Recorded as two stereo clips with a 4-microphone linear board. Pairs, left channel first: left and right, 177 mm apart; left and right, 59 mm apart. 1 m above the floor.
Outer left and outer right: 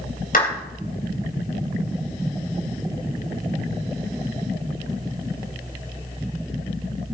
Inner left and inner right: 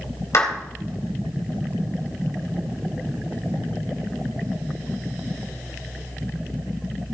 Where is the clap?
55° left (ahead or behind), 3.5 m.